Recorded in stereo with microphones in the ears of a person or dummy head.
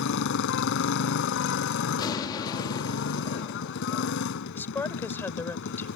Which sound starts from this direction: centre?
A woman speaking, at 4.5 s.